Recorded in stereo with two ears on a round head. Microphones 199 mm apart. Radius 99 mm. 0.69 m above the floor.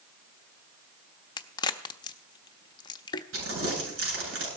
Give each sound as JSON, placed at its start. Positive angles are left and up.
{"t": 1.4, "sound": "a crack", "side_deg": 20, "distance_m": 0.6}
{"t": 3.3, "sound": "crumpling", "side_deg": -65, "distance_m": 8.5}